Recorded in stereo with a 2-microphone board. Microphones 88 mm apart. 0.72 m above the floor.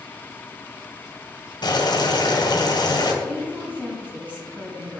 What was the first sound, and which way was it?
Boiling, 55° left (ahead or behind).